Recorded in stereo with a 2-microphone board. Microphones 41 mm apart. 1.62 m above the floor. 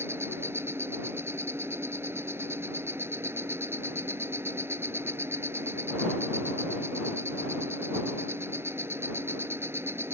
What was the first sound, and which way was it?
An insect, 80° right.